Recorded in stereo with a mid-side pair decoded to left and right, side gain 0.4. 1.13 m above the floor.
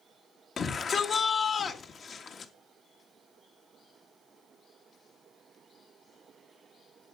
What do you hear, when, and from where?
0.6 s a shout: 55° left, 1.7 m